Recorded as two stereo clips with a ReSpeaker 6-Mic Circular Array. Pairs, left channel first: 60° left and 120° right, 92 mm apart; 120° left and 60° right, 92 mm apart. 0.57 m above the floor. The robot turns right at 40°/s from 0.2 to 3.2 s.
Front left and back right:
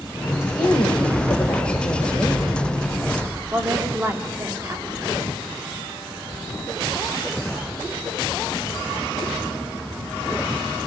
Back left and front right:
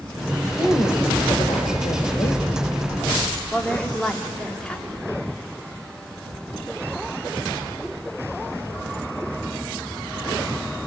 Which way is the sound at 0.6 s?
75° left.